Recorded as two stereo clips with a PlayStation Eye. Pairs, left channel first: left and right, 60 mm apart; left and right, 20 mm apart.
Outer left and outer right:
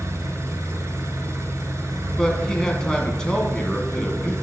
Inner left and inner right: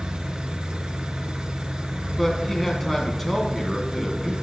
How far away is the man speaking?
About 1.5 m.